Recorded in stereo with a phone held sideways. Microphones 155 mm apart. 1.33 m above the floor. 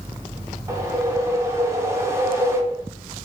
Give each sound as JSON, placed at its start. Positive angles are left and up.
{"t": 0.7, "sound": "a whoosh", "side_deg": -20, "distance_m": 0.5}